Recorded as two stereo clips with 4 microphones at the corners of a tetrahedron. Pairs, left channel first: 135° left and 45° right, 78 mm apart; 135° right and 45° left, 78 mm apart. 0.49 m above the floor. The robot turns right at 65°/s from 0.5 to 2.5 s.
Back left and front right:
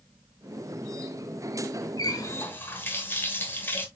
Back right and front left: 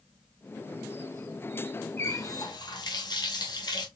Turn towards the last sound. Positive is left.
turn(degrees=-160)